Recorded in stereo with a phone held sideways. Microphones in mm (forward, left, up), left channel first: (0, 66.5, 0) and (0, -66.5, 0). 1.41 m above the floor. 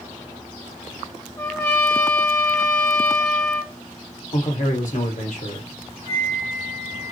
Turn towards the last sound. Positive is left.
turn(degrees=55)  # may be behind; listen again after turning